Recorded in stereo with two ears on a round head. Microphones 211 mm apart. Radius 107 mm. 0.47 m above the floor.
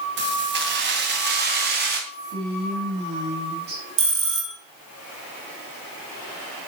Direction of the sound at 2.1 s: 45° right (ahead or behind).